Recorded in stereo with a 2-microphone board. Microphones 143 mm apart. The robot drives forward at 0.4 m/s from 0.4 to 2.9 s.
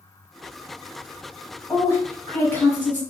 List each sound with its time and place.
1.7 s a woman speaking: 15° left (ahead or behind), 1.4 m